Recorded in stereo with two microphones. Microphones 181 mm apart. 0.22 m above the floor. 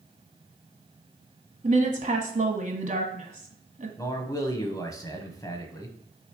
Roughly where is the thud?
I don't hear a thud.